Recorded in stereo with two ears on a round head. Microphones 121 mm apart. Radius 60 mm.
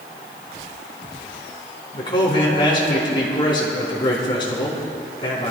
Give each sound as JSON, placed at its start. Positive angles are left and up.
{"t": 1.9, "sound": "a man speaking", "side_deg": 35, "distance_m": 4.0}